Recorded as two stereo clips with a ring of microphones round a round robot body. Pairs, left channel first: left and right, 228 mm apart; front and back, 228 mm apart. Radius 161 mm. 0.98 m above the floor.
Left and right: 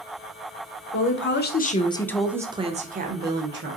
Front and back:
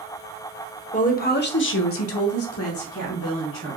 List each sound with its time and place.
0.9 s a woman speaking: 60° left, 0.8 m; by 3.8 s 50° right, 1.1 m